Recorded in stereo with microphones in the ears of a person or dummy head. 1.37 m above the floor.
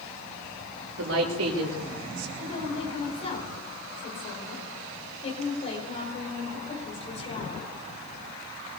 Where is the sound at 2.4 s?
30° left (ahead or behind), 5.5 m.